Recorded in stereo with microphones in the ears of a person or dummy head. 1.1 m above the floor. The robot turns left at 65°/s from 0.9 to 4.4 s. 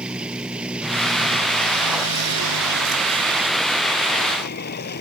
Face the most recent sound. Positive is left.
turn(degrees=130)